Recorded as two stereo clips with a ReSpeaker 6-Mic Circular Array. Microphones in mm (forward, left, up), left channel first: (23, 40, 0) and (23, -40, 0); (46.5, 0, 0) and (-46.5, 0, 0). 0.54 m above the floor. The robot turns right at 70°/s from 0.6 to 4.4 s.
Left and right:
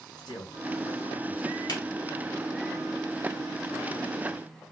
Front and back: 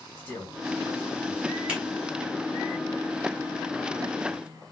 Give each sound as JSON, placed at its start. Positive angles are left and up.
{"t": 0.2, "sound": "a man speaking", "azimuth_deg": 65, "distance_m": 3.5}
{"t": 1.7, "sound": "a finger snap", "azimuth_deg": 105, "distance_m": 1.8}